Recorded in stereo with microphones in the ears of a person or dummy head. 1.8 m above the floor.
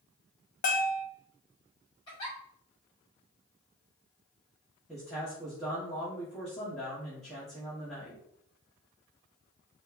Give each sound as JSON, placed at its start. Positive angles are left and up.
{"t": 0.6, "sound": "a bell", "side_deg": 40, "distance_m": 0.8}
{"t": 2.1, "sound": "a giggle", "side_deg": 25, "distance_m": 1.7}
{"t": 4.9, "sound": "a man speaking", "side_deg": 0, "distance_m": 1.4}